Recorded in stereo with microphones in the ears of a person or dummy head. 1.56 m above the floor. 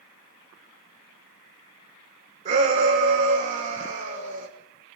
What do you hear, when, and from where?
2.5 s a shout: 40° right (ahead or behind), 6.5 m